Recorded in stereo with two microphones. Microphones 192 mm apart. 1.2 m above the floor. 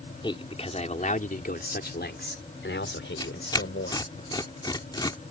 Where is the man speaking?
25° left (ahead or behind); by 4.1 s 85° left.